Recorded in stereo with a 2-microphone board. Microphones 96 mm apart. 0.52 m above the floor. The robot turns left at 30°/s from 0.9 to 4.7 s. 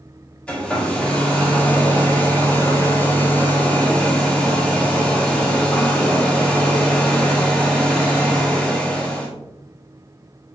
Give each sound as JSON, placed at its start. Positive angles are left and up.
{"t": 0.5, "sound": "a hair dryer", "side_deg": 10, "distance_m": 1.2}